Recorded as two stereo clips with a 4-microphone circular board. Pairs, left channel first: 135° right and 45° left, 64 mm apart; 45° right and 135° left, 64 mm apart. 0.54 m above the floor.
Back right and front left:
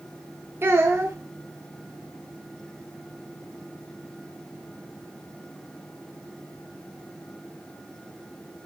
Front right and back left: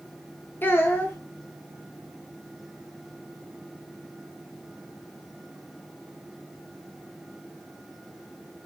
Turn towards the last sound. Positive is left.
turn(degrees=0)